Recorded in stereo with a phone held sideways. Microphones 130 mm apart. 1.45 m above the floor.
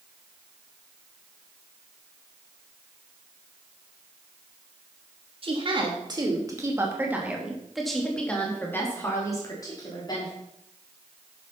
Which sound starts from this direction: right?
A woman speaking, at 5.4 s.